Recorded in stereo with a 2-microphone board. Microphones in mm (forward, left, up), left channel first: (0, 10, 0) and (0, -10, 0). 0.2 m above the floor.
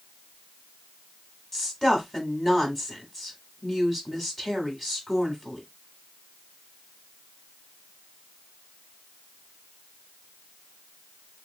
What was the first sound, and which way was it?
A woman speaking, 20° left (ahead or behind).